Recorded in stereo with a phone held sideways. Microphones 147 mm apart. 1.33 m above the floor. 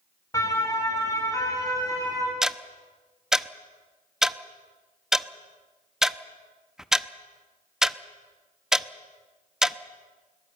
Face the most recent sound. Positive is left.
turn(degrees=-5)  # may be behind; listen again after turning